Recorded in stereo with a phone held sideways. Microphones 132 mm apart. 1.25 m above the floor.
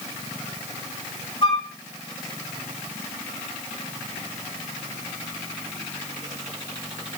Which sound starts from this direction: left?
A flute, at 1.4 s.